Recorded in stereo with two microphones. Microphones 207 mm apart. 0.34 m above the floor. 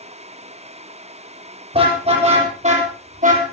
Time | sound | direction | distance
1.7 | a car horn | 30° right (ahead or behind) | 7.5 m